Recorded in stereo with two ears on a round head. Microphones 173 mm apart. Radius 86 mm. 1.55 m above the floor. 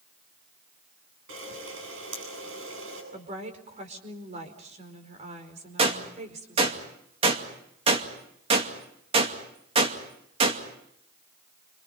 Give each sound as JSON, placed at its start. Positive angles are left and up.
{"t": 1.3, "sound": "a camera shutter", "side_deg": -75, "distance_m": 9.0}
{"t": 3.1, "sound": "a woman speaking", "side_deg": -40, "distance_m": 4.5}
{"t": 5.8, "sound": "a gunshot", "side_deg": -30, "distance_m": 2.5}